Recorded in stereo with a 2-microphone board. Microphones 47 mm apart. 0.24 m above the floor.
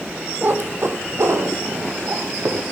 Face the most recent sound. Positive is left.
turn(degrees=-70)  # may be behind; listen again after turning